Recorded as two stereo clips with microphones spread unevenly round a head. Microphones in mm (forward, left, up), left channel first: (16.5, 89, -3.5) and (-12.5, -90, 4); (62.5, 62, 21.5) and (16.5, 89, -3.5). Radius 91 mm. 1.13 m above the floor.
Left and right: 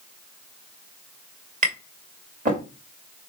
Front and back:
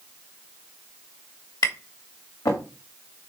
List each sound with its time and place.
1.6 s tapping: 50° right, 2.5 m